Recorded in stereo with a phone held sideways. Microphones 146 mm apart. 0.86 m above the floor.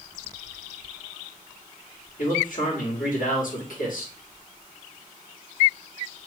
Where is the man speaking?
70° left (ahead or behind), 2 m.